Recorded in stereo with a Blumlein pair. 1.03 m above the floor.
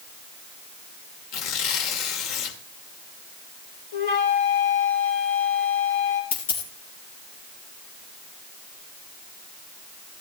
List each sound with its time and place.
1.3 s tearing paper: 45° left, 2.5 m
3.9 s a flute: 55° left, 4 m
6.3 s a dropped coin: 60° left, 3.5 m